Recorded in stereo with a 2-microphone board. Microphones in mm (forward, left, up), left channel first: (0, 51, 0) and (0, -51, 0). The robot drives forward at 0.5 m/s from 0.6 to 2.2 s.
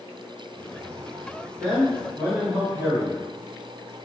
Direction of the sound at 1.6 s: 25° right (ahead or behind).